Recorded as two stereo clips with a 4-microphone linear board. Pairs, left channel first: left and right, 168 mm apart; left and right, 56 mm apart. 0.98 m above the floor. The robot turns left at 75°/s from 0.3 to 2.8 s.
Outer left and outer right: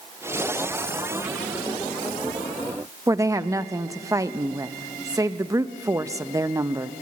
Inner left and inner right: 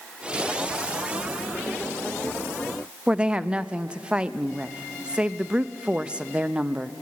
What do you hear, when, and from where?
3.1 s a woman speaking: 20° right (ahead or behind), 0.7 m